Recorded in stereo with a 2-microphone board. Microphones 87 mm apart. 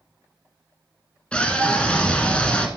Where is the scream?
15° left (ahead or behind), 1.0 m.